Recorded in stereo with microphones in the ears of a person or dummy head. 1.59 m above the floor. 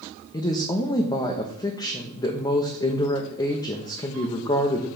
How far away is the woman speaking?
About 0.9 m.